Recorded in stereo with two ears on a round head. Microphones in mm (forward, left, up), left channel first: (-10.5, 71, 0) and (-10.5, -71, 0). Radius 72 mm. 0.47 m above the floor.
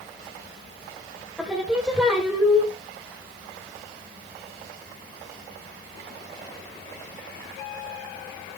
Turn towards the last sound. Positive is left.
turn(degrees=-5)  # may be behind; listen again after turning